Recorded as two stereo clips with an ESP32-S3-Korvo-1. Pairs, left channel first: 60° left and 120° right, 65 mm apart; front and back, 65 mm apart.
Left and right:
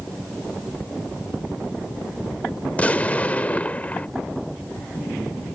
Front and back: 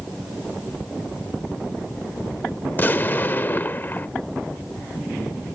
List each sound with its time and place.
2.7 s an explosion: 15° left